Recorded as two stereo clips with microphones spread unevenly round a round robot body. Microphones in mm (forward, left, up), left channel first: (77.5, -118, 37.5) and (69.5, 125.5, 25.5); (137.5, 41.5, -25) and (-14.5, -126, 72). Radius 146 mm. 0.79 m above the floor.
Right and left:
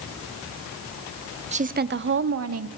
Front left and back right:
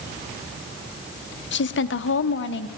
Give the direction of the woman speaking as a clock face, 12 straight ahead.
11 o'clock.